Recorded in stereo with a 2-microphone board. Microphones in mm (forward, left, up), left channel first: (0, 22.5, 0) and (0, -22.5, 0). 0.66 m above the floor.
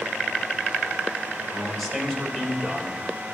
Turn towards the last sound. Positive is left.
turn(degrees=20)  # may be behind; listen again after turning